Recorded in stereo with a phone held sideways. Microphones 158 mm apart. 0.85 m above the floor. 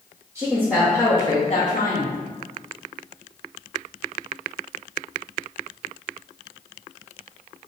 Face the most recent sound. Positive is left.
turn(degrees=70)  # may be behind; listen again after turning